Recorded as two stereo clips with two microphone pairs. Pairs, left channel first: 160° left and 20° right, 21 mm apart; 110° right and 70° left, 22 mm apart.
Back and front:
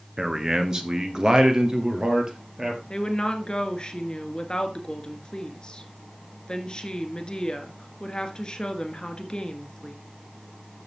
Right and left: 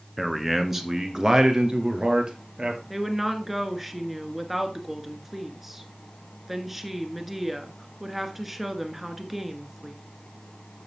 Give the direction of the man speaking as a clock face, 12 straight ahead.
1 o'clock.